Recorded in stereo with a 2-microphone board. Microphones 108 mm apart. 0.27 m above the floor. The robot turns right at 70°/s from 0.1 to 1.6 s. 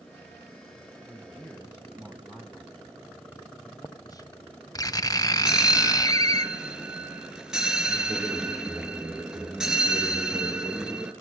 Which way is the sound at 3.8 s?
35° left (ahead or behind).